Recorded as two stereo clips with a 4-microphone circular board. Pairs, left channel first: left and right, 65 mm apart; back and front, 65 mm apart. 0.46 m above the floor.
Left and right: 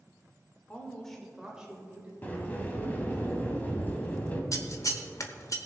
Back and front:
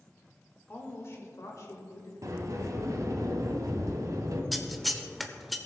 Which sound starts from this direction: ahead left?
A sliding door, at 2.2 s.